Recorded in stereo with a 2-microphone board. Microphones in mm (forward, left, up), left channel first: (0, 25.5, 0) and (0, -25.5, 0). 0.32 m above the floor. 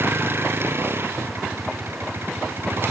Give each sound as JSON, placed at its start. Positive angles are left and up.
{"t": 0.0, "sound": "a vehicle", "side_deg": -50}